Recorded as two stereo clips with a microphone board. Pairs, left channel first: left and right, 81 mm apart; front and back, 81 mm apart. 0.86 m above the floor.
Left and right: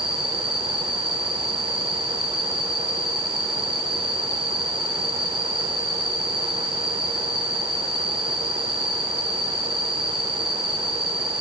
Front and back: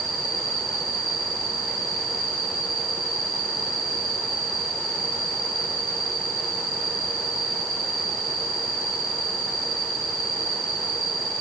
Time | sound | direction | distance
0.0 | an insect | 15° right | 5 m